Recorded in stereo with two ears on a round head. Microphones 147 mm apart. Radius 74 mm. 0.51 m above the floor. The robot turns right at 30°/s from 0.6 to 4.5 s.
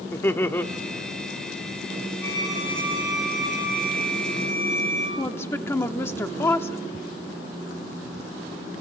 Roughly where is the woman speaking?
Centre.